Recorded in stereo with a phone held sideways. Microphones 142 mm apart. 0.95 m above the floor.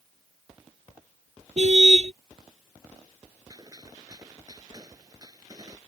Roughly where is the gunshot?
Right.